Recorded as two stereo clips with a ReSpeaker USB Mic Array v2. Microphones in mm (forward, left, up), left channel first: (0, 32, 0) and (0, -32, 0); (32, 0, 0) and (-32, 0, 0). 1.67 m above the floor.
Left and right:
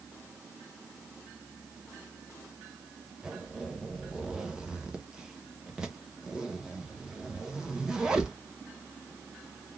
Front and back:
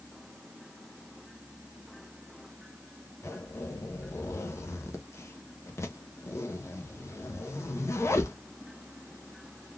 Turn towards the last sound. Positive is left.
turn(degrees=-15)